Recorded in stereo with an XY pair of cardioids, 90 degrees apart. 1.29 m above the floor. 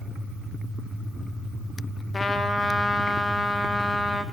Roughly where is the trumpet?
Ahead left.